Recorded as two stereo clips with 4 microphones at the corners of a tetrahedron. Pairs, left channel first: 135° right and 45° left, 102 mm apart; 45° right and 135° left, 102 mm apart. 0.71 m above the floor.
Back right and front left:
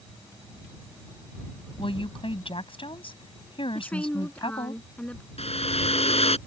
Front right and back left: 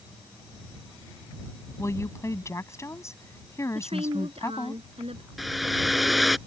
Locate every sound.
1.8 s a woman speaking: 105° right
3.8 s a woman speaking: 145° left
5.4 s a hair dryer: 135° right